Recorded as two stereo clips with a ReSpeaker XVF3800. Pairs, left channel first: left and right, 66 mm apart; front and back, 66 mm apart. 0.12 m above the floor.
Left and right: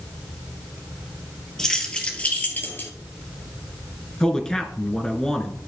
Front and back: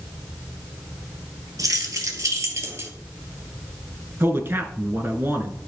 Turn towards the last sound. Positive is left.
turn(degrees=165)